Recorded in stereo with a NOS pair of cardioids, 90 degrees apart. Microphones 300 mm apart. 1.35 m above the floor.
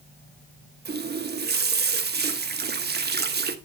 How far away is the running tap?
About 1.3 m.